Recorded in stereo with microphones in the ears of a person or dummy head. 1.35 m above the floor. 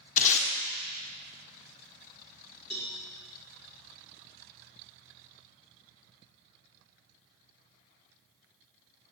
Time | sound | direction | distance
0.2 | tape being pulled | 45° left (ahead or behind) | 1.2 m
2.7 | a cowbell | 50° left (ahead or behind) | 2 m